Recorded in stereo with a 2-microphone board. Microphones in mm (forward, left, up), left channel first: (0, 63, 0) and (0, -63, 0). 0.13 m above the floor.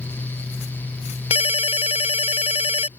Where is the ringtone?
55° left (ahead or behind).